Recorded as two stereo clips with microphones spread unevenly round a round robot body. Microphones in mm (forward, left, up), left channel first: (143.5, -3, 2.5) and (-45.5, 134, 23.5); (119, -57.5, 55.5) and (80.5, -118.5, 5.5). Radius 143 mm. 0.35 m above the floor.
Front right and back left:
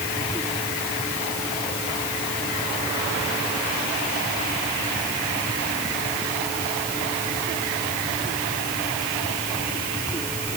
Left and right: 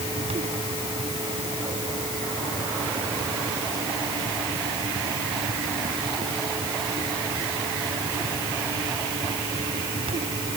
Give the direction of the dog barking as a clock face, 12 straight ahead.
No dog barking in this recording.